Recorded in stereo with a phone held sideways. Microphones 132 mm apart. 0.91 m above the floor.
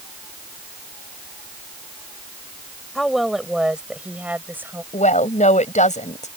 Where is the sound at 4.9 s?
65° left (ahead or behind).